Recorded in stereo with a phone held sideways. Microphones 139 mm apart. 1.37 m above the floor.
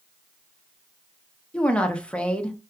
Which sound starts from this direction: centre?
A woman speaking, at 1.5 s.